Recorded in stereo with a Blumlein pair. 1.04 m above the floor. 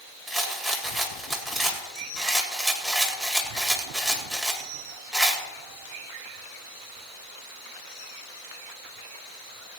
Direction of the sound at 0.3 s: 10° right.